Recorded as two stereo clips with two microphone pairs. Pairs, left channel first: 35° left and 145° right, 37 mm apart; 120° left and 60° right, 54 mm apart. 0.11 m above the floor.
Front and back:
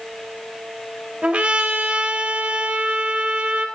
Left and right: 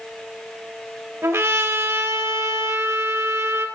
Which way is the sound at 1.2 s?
90° right.